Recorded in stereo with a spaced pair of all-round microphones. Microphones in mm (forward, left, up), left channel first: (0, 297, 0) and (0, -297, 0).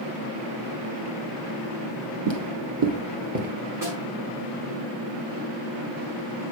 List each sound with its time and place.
2.3 s footsteps: 50° right (ahead or behind), 1.8 m; by 3.5 s 15° right (ahead or behind), 1.1 m
3.8 s a snare drum: 35° right (ahead or behind), 5.5 m